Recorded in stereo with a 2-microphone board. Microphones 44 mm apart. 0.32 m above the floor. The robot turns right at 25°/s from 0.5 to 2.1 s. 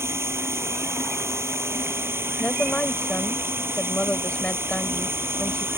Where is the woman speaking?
35° left (ahead or behind).